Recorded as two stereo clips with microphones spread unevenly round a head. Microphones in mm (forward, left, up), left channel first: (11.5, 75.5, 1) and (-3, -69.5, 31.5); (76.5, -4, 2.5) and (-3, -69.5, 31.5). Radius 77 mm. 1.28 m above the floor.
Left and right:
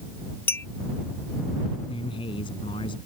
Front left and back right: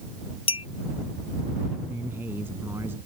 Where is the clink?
5° left.